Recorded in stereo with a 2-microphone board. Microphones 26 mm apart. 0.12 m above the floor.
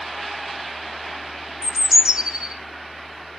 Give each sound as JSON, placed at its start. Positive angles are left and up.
{"t": 1.6, "sound": "a bird", "side_deg": -25, "distance_m": 0.6}